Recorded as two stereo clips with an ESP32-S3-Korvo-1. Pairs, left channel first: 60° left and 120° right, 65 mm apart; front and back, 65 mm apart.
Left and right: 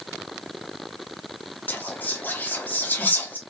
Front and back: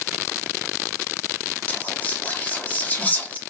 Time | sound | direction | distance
1.7 | whispering | 35° left | 0.7 m